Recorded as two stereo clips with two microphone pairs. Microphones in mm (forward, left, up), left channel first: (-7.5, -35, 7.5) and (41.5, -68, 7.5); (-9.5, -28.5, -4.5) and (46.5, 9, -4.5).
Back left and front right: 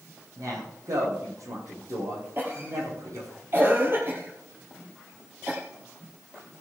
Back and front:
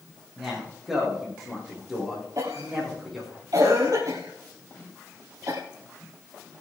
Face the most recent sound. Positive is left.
turn(degrees=10)